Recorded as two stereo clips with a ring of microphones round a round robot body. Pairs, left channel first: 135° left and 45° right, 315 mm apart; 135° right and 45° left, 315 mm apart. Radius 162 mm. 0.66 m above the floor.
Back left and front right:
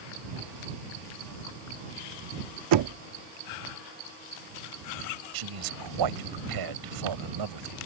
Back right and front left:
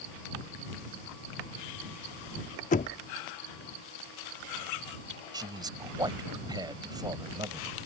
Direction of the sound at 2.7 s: 70° right.